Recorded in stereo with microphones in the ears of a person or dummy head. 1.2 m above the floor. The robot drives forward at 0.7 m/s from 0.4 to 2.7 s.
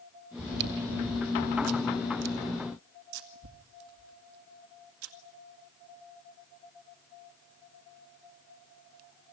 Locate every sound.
0.4 s chewing: 55° right (ahead or behind), 2.5 m; by 5.1 s 75° right (ahead or behind), 1.9 m